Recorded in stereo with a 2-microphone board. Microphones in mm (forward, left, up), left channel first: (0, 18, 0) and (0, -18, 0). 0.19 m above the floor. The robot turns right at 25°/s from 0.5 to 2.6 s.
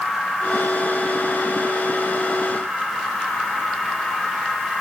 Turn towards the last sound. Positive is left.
No sound to turn to.